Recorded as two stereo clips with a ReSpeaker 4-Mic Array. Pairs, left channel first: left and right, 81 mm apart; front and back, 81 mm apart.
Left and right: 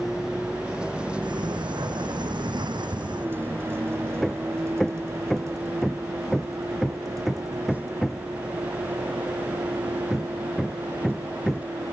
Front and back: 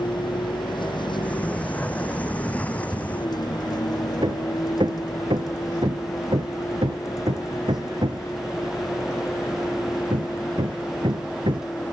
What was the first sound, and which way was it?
A vehicle, 5° right.